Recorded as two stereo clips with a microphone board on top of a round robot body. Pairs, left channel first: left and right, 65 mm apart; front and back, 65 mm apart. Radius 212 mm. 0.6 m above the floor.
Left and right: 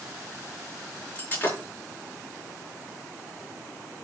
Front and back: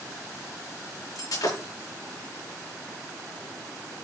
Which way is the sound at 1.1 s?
30° left.